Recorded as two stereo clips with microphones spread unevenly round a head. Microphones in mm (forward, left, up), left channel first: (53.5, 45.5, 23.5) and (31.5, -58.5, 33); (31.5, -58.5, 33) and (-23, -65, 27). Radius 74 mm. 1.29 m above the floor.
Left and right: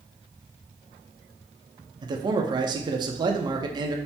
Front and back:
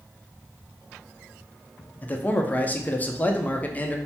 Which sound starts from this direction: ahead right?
A man speaking, at 2.0 s.